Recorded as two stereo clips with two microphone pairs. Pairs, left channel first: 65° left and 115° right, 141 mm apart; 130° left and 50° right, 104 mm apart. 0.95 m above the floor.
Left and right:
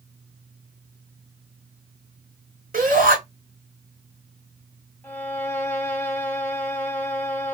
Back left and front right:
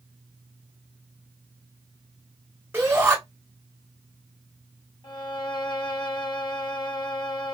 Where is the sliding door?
No sliding door in this recording.